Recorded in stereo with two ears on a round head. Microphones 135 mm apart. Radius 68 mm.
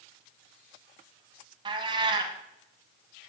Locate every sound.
1.6 s a cat meowing: 30° right (ahead or behind), 1.2 m